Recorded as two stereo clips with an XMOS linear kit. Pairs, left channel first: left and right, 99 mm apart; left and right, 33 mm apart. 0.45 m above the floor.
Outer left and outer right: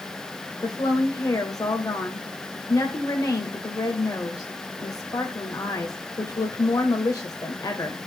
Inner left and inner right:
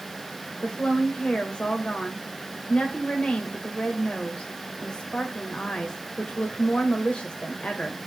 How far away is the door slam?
I don't hear a door slam.